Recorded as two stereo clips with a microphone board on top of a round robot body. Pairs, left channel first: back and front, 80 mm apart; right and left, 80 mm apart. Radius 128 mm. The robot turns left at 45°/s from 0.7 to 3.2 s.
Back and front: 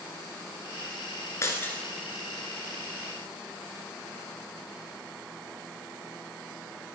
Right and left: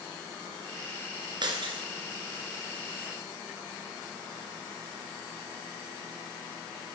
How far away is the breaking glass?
About 2 m.